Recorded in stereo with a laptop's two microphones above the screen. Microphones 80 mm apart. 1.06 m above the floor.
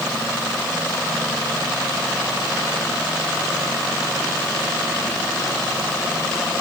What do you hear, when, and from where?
Only background noise.